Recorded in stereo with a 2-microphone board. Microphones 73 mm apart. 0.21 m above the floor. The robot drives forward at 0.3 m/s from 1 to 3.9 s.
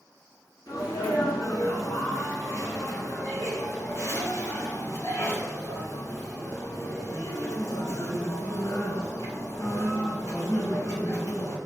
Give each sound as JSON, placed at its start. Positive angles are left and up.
{"t": 0.7, "sound": "a sneeze", "side_deg": 55, "distance_m": 2.5}